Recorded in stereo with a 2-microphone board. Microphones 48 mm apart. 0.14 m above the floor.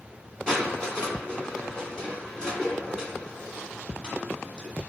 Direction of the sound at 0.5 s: 15° left (ahead or behind).